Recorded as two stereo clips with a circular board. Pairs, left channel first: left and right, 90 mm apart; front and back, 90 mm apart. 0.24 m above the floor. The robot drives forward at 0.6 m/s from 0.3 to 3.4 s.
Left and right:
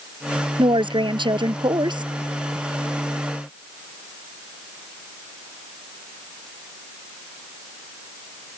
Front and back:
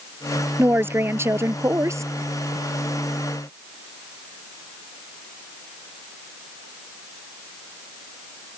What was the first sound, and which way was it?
A woman speaking, 115° right.